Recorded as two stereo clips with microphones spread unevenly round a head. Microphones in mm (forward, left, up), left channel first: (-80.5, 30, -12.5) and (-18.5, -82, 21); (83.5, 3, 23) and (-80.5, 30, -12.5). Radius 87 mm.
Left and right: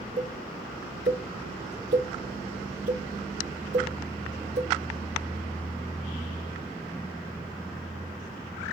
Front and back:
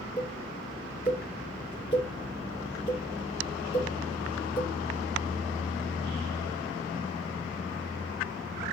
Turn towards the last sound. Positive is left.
turn(degrees=-70)